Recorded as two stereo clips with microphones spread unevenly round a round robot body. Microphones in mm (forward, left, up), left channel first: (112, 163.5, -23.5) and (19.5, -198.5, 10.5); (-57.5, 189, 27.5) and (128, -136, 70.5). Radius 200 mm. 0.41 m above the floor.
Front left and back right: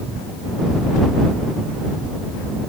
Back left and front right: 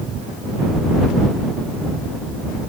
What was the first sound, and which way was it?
Only background noise.